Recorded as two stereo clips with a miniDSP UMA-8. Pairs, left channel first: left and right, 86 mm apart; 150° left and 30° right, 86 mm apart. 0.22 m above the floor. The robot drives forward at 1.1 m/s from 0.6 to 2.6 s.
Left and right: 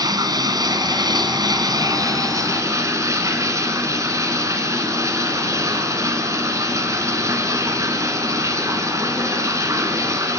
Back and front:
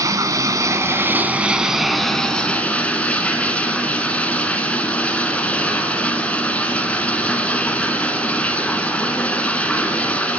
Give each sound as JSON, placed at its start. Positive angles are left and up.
{"t": 0.0, "sound": "running water", "azimuth_deg": -70, "distance_m": 2.0}